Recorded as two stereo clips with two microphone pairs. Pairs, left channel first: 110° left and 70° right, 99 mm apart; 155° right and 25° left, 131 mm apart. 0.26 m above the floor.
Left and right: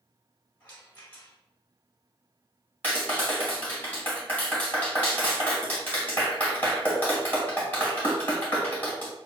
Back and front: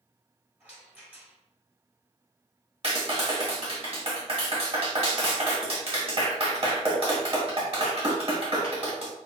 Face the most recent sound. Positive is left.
turn(degrees=45)